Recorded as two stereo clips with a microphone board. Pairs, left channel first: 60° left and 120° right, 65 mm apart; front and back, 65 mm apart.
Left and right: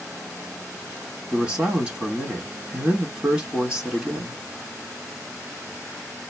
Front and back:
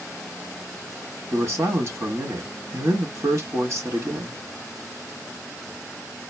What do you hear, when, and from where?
1.3 s a man speaking: 175° left, 1.7 m